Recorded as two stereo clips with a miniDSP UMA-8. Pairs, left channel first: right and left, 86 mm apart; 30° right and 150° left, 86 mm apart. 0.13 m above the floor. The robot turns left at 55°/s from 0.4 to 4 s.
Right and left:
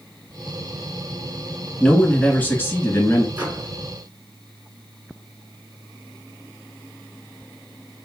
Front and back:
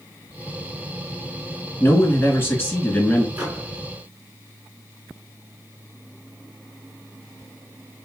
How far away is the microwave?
About 1.2 m.